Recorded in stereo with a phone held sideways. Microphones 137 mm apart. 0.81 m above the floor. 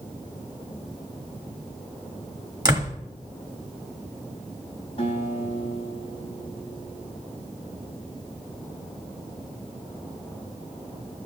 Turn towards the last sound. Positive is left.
turn(degrees=45)  # may be behind; listen again after turning